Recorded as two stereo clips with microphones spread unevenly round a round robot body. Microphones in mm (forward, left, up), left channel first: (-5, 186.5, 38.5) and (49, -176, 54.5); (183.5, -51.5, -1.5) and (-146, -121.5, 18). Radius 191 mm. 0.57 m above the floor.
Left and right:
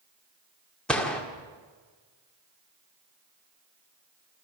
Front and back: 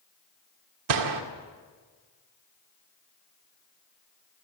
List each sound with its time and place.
0.9 s a gunshot: 175° right, 1.8 m